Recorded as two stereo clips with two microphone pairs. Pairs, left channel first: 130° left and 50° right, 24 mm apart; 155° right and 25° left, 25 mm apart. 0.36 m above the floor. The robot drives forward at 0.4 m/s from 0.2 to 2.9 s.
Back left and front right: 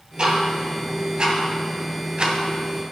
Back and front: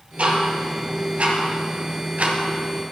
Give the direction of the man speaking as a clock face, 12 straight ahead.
No man speaking in this recording.